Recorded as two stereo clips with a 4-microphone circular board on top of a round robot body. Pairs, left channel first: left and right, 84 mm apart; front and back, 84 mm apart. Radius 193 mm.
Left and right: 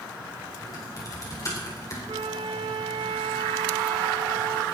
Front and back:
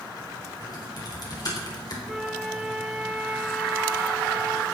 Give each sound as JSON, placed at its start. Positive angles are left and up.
{"t": 0.6, "sound": "typing on a keyboard", "azimuth_deg": 40, "distance_m": 3.5}
{"t": 2.1, "sound": "a flute", "azimuth_deg": -90, "distance_m": 1.5}